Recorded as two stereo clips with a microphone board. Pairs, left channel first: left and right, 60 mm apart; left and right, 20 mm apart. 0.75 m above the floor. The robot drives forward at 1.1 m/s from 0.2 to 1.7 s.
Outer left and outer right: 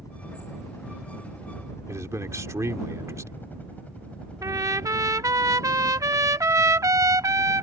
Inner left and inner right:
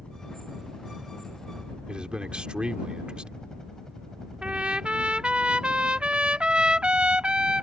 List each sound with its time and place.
0.0 s a helicopter: 70° left (ahead or behind); by 7.6 s 15° right (ahead or behind)
1.9 s a man speaking: 60° right (ahead or behind)
4.4 s a trumpet: 65° right (ahead or behind)